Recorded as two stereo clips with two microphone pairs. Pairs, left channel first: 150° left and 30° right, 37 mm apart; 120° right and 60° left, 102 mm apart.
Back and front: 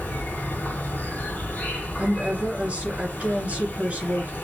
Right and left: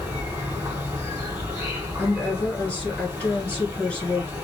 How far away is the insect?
About 1.3 m.